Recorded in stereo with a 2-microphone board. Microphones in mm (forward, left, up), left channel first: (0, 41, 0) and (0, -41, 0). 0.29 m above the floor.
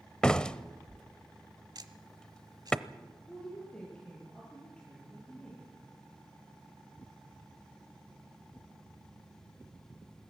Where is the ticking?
60° right (ahead or behind), 1.2 m.